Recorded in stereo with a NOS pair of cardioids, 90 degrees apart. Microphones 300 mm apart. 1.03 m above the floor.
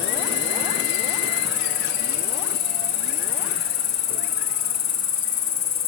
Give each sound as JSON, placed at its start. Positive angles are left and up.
{"t": 0.0, "sound": "an insect", "azimuth_deg": 65, "distance_m": 3.0}